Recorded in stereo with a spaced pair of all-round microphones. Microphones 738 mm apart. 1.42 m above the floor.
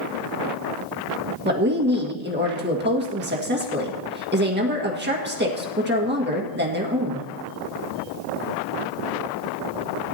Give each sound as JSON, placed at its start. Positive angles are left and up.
{"t": 1.4, "sound": "a woman speaking", "side_deg": -15, "distance_m": 1.7}